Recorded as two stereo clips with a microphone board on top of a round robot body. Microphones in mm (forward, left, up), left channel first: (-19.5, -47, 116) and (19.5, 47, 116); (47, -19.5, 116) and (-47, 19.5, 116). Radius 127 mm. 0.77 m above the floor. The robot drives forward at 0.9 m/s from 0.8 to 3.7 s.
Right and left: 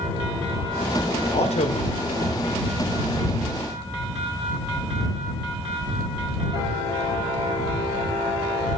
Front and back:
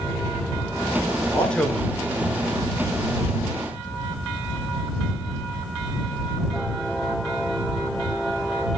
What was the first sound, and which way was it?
A man speaking, 100° right.